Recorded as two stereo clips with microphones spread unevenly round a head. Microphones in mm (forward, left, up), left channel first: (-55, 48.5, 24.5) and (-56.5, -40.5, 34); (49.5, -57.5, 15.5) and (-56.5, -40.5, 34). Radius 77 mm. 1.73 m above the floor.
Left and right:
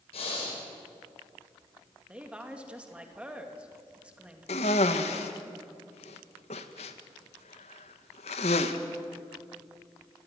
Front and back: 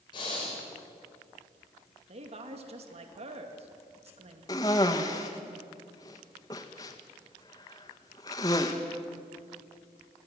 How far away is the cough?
About 1.7 m.